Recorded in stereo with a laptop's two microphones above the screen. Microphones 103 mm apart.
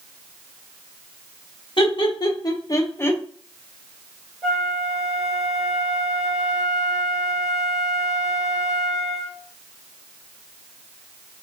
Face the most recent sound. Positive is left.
turn(degrees=-5)  # may be behind; listen again after turning